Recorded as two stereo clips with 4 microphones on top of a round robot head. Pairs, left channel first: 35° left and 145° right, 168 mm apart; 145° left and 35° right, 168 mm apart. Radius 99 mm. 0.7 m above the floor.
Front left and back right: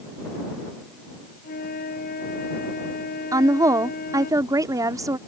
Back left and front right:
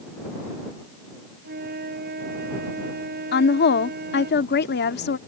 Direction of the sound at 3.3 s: 145° left.